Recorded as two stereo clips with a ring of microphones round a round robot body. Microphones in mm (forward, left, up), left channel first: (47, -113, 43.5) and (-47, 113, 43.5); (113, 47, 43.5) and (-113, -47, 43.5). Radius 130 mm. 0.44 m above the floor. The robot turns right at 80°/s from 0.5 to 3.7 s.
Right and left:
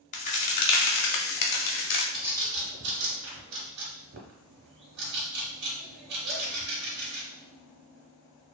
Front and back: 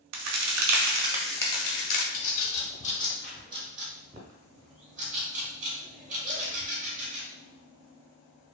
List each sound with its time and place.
0.1 s a crack: 130° right, 0.6 m; by 2.0 s 5° right, 0.6 m
2.1 s a bird: 20° left, 0.8 m; by 7.2 s 145° left, 0.8 m